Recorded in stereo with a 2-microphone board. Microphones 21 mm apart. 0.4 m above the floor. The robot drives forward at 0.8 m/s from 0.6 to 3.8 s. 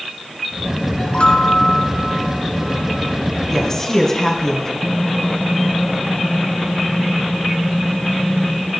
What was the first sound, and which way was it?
A chime, 65° left (ahead or behind).